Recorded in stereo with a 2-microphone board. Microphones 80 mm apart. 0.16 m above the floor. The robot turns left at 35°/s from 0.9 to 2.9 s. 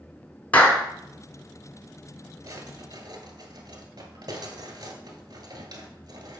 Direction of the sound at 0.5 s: 20° left (ahead or behind).